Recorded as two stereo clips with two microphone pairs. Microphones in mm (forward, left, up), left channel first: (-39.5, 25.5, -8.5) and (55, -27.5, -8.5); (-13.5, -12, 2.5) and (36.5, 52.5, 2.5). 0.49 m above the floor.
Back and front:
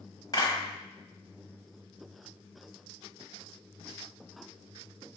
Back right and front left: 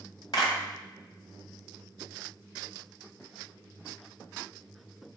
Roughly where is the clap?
Behind right.